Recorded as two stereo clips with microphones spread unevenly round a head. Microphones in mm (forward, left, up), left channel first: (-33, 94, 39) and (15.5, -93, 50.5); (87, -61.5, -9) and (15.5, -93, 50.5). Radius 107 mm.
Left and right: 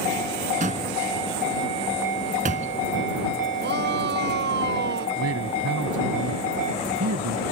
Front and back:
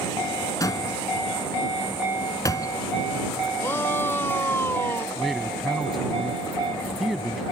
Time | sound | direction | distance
0.6 | a door slam | 20° right | ?
3.6 | a shout | 40° right | ?
5.2 | a man speaking | 70° right | ?